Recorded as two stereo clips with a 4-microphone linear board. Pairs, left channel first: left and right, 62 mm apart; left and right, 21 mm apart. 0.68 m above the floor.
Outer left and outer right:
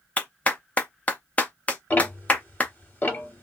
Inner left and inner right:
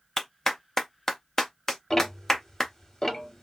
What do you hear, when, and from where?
0.2 s a clap: 25° left (ahead or behind), 0.6 m
1.9 s ticking: 30° left (ahead or behind), 0.9 m